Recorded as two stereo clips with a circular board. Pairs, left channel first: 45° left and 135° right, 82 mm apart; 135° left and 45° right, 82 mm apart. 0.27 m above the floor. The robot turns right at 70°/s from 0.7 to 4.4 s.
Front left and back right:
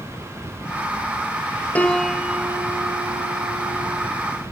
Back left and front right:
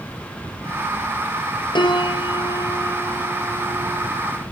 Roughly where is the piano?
Behind left.